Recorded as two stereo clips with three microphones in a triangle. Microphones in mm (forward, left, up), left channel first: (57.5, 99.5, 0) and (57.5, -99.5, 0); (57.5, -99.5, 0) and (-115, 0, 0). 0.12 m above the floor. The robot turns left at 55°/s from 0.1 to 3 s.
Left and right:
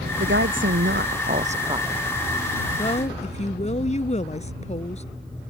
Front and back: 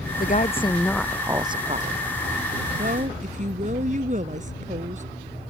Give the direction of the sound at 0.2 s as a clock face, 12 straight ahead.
2 o'clock.